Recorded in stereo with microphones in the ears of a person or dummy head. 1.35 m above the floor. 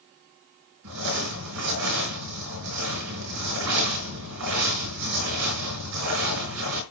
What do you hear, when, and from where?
0.8 s crumpling: 75° right (ahead or behind), 4.5 m